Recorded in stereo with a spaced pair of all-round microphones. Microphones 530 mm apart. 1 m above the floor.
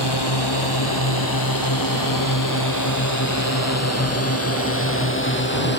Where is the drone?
45° left (ahead or behind); by 5.8 s 20° left (ahead or behind).